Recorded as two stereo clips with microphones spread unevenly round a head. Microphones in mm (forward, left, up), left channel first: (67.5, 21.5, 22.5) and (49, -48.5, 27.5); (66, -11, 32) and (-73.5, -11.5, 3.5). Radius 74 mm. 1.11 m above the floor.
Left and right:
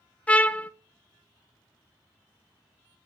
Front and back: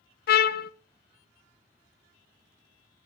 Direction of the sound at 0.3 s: 10° left.